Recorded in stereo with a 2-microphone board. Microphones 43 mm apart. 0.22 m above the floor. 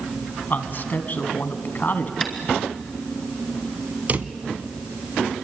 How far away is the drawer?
About 1.0 m.